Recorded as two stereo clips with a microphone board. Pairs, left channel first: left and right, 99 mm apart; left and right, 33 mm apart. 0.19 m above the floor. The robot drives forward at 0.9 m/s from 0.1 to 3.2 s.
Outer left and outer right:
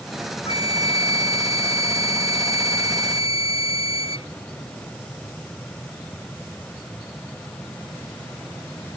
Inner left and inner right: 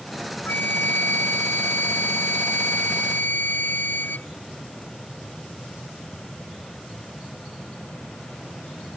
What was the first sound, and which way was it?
A flute, 70° left (ahead or behind).